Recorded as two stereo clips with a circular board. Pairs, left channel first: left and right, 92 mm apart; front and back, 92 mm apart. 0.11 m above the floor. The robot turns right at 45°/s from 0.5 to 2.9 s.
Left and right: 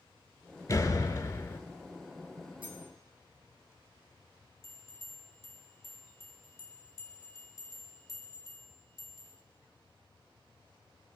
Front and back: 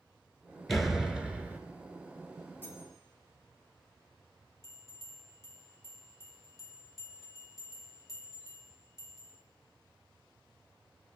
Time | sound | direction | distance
0.7 | a door slam | 85° left | 0.8 m
2.6 | cutlery clinking | 70° right | 2.5 m
4.6 | a bell | 45° left | 1.3 m